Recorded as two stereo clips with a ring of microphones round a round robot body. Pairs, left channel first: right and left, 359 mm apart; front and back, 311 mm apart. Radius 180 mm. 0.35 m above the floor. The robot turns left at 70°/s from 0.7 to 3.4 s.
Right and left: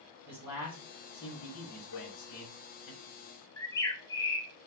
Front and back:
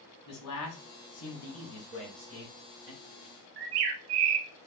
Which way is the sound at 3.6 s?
170° right.